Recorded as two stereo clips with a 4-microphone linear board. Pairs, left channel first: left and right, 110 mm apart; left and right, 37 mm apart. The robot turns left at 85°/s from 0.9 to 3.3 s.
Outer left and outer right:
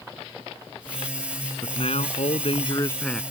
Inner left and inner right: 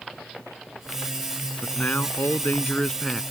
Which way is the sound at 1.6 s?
135° left.